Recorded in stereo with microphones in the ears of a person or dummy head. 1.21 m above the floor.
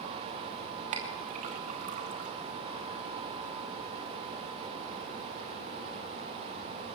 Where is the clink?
40° right (ahead or behind), 2.5 m.